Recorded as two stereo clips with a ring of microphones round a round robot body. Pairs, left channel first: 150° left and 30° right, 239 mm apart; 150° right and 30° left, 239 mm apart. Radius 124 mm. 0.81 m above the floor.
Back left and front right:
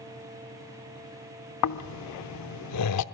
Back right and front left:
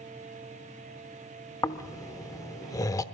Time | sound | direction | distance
1.6 | snoring | 135° left | 0.9 m